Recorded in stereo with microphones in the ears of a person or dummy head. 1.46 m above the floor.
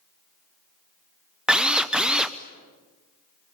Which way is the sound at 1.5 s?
5° right (ahead or behind).